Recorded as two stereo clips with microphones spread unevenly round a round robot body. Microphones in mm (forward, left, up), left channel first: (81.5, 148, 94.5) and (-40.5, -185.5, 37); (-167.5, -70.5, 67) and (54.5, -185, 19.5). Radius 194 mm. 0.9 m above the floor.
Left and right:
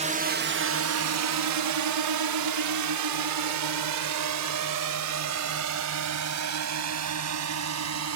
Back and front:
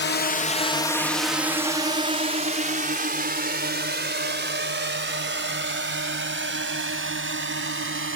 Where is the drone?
165° right; by 8.2 s 65° right.